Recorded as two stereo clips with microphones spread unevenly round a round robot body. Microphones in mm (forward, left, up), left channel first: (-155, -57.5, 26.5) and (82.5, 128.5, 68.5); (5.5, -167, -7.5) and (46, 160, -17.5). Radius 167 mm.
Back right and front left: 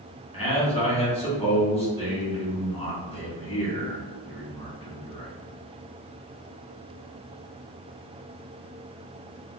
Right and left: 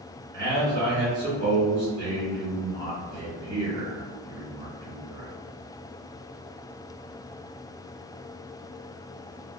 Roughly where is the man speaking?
Behind left.